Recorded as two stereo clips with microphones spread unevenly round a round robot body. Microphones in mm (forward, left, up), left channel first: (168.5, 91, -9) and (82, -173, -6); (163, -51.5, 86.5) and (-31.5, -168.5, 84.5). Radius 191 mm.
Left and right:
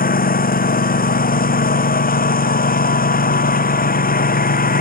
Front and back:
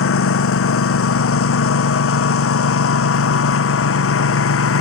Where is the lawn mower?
15° left.